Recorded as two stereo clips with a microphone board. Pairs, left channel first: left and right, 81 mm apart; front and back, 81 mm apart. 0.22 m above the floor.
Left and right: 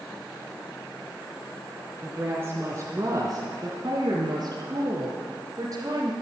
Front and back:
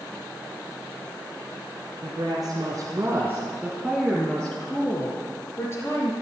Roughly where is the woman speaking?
Behind right.